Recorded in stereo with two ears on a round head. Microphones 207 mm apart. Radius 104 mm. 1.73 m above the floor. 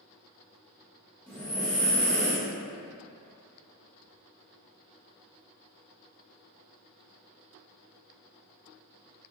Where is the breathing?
5° left (ahead or behind), 1.1 m.